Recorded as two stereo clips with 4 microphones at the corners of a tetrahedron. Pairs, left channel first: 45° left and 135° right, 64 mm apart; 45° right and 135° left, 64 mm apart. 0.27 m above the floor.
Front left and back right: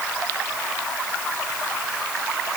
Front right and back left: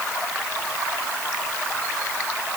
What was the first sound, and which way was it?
Only background noise.